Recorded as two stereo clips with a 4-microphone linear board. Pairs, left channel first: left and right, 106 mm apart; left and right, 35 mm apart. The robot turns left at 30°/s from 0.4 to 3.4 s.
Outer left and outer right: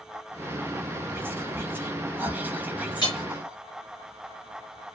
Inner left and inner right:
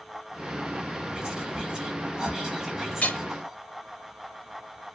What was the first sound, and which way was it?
Whispering, 20° right (ahead or behind).